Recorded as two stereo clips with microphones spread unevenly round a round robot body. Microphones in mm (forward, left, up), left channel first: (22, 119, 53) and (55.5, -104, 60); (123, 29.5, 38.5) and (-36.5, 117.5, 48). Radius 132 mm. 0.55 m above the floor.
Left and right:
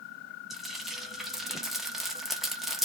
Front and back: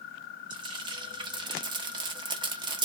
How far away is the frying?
About 1.1 m.